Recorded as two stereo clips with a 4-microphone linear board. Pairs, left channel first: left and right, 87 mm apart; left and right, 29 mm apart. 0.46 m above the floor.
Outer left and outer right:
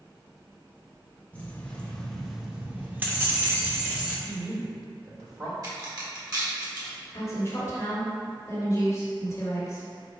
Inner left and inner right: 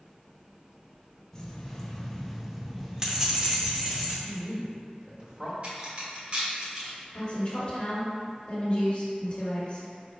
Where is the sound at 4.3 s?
40° right (ahead or behind), 1.4 m.